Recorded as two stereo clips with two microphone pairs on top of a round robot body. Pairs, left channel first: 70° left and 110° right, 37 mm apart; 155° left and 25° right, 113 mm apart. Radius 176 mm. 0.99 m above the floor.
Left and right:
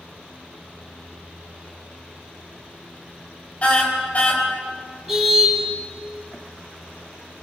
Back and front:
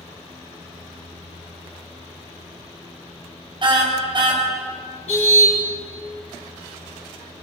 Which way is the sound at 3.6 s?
20° left.